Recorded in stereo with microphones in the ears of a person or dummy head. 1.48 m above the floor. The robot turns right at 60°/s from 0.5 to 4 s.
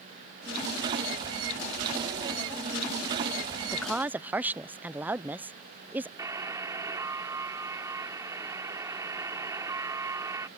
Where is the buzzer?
20° right (ahead or behind).